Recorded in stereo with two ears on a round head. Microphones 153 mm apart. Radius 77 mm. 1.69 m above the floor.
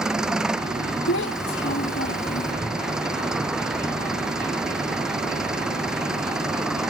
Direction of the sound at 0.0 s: 5° right (ahead or behind).